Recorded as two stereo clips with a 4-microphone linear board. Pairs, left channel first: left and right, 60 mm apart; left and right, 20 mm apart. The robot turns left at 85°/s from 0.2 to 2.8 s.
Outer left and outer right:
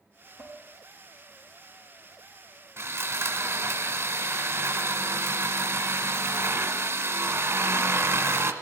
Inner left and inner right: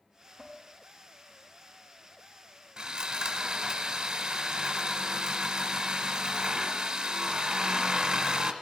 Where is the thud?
No thud in this recording.